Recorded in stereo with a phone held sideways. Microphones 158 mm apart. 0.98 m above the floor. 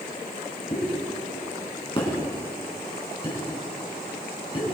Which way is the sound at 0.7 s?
35° left (ahead or behind).